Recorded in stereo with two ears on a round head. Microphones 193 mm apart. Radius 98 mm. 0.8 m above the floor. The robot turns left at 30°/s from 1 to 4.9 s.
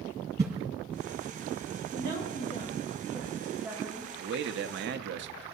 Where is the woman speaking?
50° left, 3.5 m; by 4.0 s 10° right, 3.5 m.